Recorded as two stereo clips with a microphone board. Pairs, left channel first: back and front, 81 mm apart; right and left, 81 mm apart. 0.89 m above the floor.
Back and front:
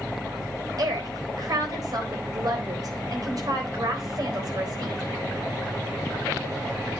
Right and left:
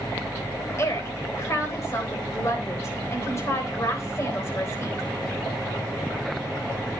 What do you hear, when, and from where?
0.8 s a woman speaking: 35° right, 4 m